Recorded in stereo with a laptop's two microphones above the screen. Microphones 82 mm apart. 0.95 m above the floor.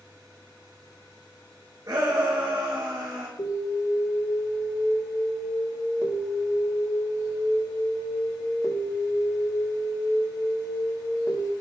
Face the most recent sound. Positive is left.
turn(degrees=65)  # may be behind; listen again after turning